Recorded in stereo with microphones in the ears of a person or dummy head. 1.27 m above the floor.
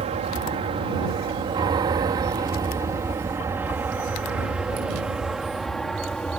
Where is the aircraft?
30° right (ahead or behind); by 6.4 s 5° left (ahead or behind).